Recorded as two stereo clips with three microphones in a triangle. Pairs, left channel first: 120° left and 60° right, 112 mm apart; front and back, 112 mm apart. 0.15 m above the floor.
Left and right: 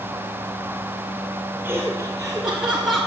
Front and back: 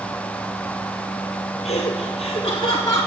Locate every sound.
1.6 s laughter: 20° left, 3 m; by 3.1 s 35° left, 1.3 m